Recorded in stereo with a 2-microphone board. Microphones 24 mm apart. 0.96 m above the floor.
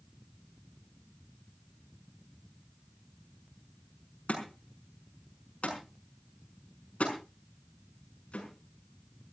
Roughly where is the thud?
Left.